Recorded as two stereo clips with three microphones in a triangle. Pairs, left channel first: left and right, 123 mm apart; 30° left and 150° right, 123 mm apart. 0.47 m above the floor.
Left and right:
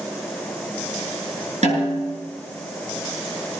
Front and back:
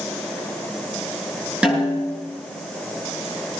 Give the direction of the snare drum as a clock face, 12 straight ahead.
2 o'clock.